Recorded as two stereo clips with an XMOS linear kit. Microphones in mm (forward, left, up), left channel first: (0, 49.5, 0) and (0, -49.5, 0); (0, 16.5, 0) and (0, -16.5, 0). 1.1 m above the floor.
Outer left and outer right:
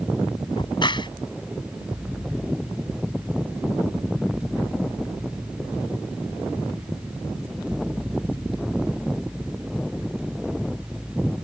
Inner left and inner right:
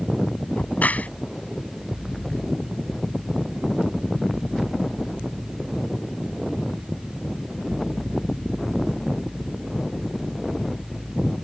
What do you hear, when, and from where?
0.6 s a crack: 50° left (ahead or behind)